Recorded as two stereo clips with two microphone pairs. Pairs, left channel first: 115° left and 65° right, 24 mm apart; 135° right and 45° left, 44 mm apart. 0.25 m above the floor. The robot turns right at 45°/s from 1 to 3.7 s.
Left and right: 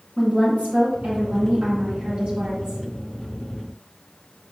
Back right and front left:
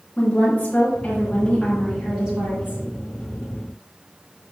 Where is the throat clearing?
I don't hear throat clearing.